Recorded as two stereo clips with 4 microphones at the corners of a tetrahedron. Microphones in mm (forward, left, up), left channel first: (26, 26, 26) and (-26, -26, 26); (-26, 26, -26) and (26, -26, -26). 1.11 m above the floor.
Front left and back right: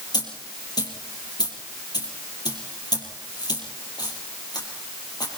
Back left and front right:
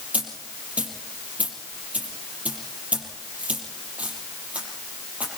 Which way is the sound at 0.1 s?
25° left.